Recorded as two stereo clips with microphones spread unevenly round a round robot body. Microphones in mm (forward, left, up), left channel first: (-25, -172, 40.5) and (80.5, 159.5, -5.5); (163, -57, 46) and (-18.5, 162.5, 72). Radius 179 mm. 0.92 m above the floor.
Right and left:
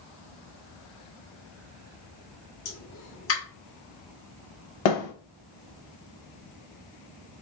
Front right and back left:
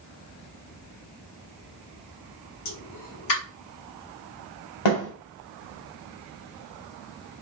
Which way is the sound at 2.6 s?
55° right.